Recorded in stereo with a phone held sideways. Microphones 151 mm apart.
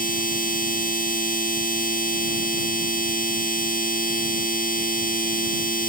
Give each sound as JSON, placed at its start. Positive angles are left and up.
{"t": 0.0, "sound": "a machine running", "side_deg": 65}